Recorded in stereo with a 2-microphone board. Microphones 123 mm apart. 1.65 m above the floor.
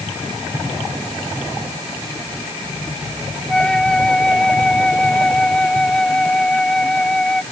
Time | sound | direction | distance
3.5 | a flute | 5° left (ahead or behind) | ?